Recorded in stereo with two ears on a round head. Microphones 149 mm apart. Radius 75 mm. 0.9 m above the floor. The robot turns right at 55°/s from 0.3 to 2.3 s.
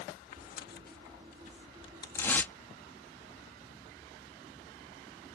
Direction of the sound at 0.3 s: 50° left (ahead or behind).